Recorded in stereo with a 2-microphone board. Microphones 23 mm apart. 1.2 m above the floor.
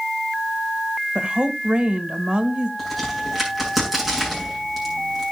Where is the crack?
10° right (ahead or behind), 8 m.